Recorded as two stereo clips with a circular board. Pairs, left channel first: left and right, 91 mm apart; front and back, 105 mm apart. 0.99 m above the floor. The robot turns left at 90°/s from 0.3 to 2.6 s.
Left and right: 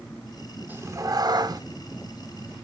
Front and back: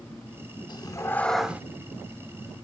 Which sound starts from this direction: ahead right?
A cat meowing, at 0.7 s.